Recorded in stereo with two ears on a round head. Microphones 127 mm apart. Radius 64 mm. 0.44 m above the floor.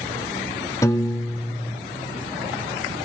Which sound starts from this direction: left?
A piano, at 0.8 s.